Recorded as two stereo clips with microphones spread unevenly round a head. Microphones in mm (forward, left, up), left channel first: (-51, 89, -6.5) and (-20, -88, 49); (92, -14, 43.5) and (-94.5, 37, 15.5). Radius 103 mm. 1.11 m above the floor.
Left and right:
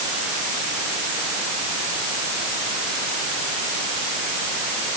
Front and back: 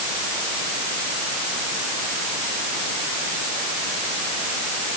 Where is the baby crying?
No baby crying in this recording.